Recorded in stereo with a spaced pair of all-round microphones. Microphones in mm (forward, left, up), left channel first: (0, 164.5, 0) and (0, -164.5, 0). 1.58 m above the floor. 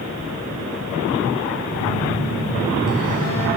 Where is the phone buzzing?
65° left (ahead or behind), 3 m.